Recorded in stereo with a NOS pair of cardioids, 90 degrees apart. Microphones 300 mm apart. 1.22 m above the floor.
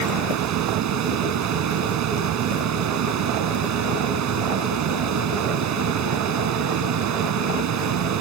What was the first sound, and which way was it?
A fan, 65° right.